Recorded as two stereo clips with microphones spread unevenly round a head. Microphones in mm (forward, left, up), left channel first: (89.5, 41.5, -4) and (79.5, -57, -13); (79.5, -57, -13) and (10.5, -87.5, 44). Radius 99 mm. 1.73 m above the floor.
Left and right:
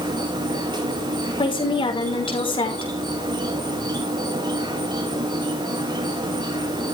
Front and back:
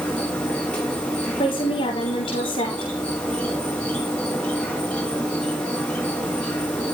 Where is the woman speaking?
55° left, 5.5 m.